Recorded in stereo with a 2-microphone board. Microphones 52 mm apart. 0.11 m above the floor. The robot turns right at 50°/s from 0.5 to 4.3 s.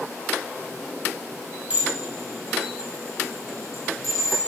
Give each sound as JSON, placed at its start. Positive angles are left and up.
{"t": 1.7, "sound": "dishes clattering", "side_deg": -30, "distance_m": 3.0}